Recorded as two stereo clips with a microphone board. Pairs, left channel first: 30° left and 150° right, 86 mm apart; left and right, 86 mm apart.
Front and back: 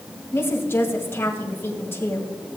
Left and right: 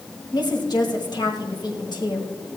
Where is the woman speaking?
85° left, 2.0 m.